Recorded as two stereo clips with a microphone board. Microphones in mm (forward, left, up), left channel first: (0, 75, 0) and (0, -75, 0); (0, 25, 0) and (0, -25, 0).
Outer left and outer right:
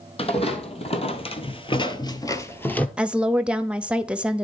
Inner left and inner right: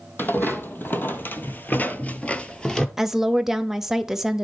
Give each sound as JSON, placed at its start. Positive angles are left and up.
{"t": 0.2, "sound": "footsteps", "side_deg": 40, "distance_m": 1.7}
{"t": 3.0, "sound": "a woman speaking", "side_deg": -5, "distance_m": 0.8}